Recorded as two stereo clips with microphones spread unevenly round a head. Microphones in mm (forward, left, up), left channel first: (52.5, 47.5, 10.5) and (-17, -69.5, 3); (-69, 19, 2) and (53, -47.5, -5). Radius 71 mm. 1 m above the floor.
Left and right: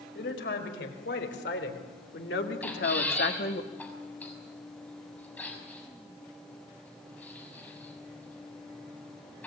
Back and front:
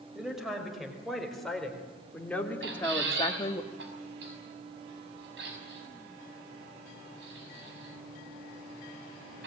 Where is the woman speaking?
60° left, 5 m; by 3.6 s 95° left, 1.6 m.